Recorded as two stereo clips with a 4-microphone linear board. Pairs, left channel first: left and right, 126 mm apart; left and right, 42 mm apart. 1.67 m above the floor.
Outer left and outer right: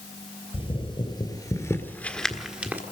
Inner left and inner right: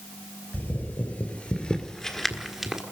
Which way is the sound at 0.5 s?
50° left (ahead or behind).